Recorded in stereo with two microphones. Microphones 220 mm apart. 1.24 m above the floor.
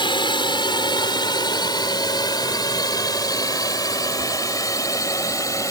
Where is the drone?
20° left (ahead or behind); by 5.7 s 15° left (ahead or behind).